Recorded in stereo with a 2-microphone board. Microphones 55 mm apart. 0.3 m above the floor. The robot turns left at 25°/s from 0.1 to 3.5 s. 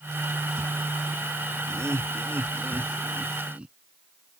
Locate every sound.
1.7 s laughter: 60° right (ahead or behind); by 3.8 s 20° right (ahead or behind)